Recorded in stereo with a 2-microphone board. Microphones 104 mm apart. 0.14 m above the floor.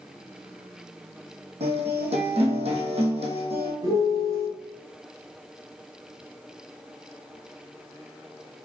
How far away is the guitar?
About 1.7 m.